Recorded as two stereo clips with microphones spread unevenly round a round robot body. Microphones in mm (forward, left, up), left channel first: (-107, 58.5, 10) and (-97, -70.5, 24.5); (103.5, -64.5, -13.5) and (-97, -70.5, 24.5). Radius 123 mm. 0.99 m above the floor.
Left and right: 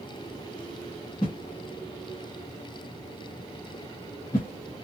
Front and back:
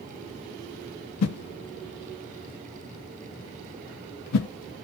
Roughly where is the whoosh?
Ahead.